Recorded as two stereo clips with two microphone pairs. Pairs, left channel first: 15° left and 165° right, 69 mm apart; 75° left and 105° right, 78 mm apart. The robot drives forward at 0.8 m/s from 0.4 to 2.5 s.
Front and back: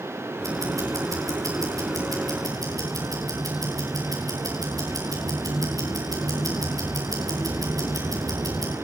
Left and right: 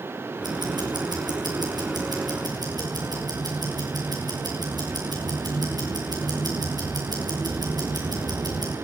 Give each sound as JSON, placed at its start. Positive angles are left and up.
{"t": 0.4, "sound": "ticking", "azimuth_deg": -125, "distance_m": 8.5}